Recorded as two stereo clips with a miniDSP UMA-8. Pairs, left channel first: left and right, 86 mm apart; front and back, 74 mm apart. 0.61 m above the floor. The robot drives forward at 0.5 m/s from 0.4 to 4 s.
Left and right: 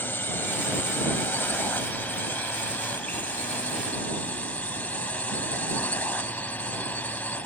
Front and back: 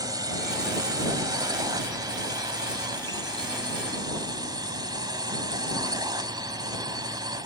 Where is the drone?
155° left; by 7.5 s 160° left.